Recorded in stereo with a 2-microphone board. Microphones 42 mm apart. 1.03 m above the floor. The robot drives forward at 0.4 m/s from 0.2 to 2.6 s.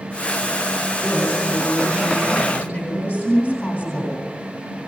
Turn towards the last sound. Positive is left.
turn(degrees=45)  # may be behind; listen again after turning